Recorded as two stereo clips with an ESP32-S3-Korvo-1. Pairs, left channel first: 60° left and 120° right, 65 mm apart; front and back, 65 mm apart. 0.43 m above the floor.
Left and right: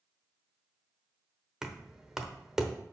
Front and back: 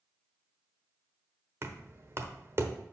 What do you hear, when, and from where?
1.6 s knocking: 160° left, 0.9 m